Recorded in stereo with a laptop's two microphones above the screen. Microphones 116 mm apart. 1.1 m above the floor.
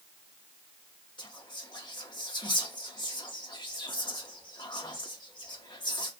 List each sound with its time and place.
1.2 s whispering: 45° left (ahead or behind), 0.5 m